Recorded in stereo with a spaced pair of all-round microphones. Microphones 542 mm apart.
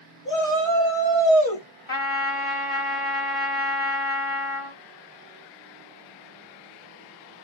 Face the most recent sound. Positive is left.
turn(degrees=70)  # may be behind; listen again after turning